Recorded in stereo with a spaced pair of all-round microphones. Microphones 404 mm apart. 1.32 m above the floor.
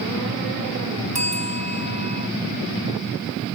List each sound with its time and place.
1.1 s a bell: 15° right (ahead or behind)